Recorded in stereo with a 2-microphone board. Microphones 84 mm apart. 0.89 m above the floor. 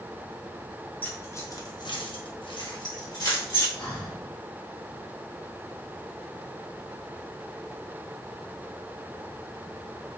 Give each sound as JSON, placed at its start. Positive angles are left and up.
{"t": 1.0, "sound": "keys jangling", "side_deg": 20, "distance_m": 1.0}
{"t": 3.8, "sound": "breathing", "side_deg": 60, "distance_m": 1.5}